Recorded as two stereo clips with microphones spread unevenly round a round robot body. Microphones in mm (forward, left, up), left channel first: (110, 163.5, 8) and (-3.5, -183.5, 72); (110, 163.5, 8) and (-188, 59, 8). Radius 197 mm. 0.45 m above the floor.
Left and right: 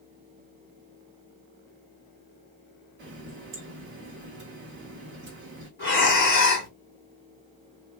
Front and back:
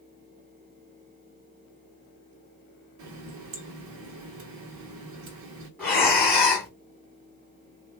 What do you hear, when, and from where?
3.0 s a running tap: 175° right, 0.9 m
5.8 s breathing: 100° left, 1.7 m